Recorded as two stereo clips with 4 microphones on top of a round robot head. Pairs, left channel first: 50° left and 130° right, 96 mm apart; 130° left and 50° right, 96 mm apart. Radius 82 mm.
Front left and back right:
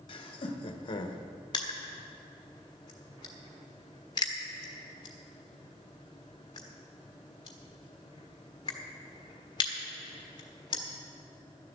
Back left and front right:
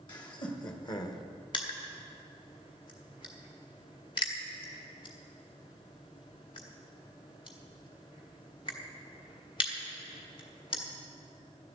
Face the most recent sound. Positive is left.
turn(degrees=95)